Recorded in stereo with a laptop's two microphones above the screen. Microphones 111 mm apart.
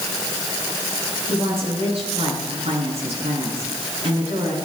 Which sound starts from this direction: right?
A woman speaking, at 1.3 s.